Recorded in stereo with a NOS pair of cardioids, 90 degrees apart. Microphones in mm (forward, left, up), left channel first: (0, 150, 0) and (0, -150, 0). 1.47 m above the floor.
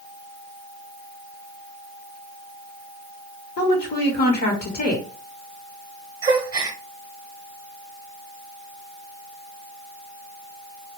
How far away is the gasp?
About 0.8 m.